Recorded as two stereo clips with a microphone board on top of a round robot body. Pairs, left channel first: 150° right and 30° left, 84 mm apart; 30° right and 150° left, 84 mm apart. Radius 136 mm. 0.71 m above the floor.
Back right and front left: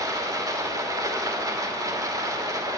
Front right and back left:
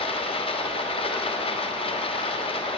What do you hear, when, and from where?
0.0 s running water: 25° right, 1.5 m